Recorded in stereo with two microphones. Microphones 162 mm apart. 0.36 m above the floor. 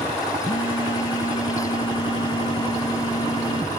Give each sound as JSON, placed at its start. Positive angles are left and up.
{"t": 0.4, "sound": "a phone buzzing", "side_deg": 35}